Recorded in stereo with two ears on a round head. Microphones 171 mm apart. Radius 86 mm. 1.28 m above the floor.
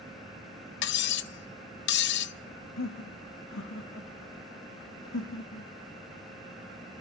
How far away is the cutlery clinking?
About 0.7 m.